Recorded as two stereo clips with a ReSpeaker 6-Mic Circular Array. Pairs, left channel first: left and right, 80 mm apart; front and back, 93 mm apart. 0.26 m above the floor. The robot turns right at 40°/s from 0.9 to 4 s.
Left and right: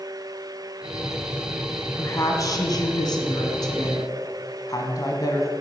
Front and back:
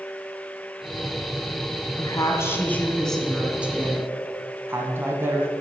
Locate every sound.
2.0 s a woman speaking: 40° left, 1.6 m; by 5.5 s 120° left, 1.6 m